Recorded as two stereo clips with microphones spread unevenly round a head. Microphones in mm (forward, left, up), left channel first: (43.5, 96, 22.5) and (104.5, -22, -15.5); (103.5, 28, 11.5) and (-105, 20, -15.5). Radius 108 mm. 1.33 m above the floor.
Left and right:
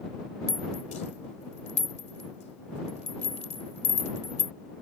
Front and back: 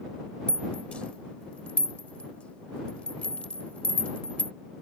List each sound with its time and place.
0.5 s a rattle: 85° left